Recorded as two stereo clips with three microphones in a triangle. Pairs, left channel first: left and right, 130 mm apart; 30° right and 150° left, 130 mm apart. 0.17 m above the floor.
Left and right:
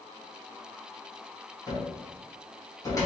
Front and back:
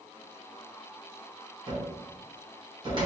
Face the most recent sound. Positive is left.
turn(degrees=135)